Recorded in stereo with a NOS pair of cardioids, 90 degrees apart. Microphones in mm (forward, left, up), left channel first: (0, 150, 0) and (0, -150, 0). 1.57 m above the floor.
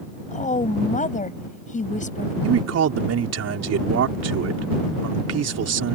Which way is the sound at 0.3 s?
25° left.